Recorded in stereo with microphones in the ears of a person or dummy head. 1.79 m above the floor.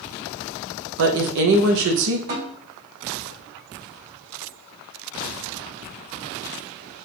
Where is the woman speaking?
60° right (ahead or behind), 0.8 m.